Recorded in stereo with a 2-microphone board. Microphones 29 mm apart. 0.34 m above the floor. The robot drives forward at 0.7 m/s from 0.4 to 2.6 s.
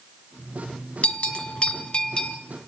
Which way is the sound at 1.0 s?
50° left (ahead or behind).